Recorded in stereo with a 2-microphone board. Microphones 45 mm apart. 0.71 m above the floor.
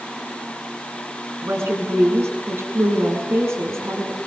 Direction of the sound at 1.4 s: 80° right.